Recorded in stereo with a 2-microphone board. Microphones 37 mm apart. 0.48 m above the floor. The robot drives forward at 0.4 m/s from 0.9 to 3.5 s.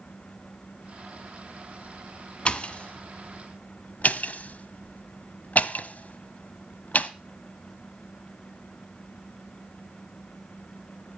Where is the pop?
30° left (ahead or behind), 1.3 m; by 7.1 s 45° left (ahead or behind), 0.9 m.